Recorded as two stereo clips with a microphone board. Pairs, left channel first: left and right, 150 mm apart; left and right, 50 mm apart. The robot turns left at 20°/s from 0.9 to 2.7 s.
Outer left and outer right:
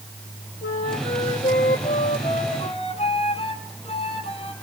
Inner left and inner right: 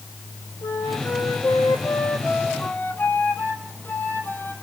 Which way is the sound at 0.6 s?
85° left.